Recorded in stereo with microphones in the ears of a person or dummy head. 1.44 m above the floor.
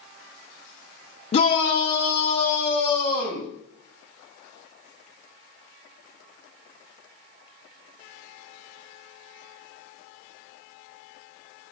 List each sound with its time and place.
1.3 s a shout: 35° left (ahead or behind), 0.5 m; by 3.5 s 15° left (ahead or behind), 3 m